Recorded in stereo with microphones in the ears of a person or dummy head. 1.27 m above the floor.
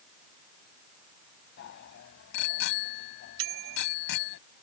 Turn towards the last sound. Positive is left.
turn(degrees=-70)  # may be behind; listen again after turning